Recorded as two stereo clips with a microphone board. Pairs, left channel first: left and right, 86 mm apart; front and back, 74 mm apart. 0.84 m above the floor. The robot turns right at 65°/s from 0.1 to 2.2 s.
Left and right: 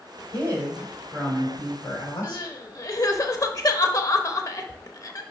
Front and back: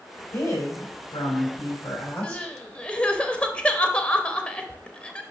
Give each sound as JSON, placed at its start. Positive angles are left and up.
{"t": 0.3, "sound": "a woman speaking", "azimuth_deg": -50, "distance_m": 3.0}
{"t": 2.2, "sound": "crying", "azimuth_deg": 70, "distance_m": 0.7}